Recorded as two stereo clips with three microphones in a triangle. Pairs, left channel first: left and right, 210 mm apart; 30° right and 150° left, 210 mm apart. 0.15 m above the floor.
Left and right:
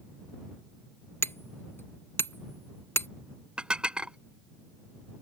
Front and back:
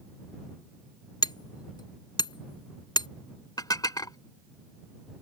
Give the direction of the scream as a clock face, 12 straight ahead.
I don't hear a scream.